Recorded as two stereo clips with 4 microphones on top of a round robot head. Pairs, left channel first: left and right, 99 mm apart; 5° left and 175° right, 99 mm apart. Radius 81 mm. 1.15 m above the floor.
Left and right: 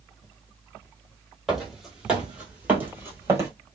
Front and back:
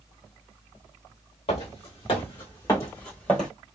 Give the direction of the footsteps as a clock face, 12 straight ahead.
12 o'clock.